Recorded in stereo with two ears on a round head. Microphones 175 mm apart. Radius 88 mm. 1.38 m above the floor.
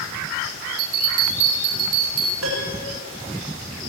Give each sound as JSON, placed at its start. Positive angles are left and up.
{"t": 0.8, "sound": "a bell", "side_deg": -85, "distance_m": 4.5}
{"t": 2.4, "sound": "a piano", "side_deg": -80, "distance_m": 8.0}